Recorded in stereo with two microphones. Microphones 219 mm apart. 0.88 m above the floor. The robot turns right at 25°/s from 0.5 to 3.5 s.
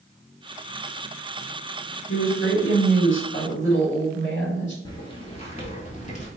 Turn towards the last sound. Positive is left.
turn(degrees=35)  # may be behind; listen again after turning